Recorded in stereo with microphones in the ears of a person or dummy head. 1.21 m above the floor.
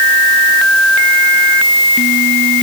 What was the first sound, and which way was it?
Only background noise.